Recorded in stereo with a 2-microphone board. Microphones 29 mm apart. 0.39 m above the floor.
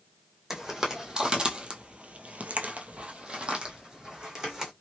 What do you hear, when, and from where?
0.5 s footsteps: 15° right (ahead or behind), 1.1 m; by 4.7 s 25° right (ahead or behind), 1.4 m